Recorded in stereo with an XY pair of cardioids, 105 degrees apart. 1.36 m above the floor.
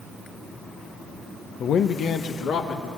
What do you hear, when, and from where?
1.6 s a man speaking: 60° left, 0.7 m; by 2.9 s 70° left, 2.5 m